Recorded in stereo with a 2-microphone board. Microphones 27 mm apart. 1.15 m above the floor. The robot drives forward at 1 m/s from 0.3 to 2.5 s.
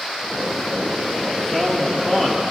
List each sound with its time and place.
1.4 s a man speaking: 20° left (ahead or behind), 3.5 m; by 2.4 s 30° left (ahead or behind), 2.5 m